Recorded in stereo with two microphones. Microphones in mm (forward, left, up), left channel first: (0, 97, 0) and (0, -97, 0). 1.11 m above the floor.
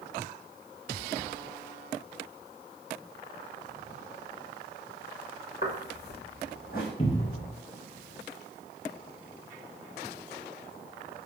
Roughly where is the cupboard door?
Left.